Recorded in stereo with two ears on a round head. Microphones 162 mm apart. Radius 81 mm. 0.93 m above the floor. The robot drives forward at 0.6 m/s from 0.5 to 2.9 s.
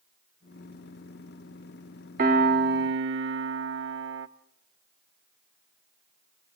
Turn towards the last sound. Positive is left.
turn(degrees=-70)  # may be behind; listen again after turning